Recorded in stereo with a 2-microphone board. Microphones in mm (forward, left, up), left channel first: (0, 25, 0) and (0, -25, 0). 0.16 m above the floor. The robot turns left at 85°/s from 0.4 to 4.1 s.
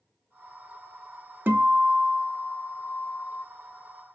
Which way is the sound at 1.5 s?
100° right.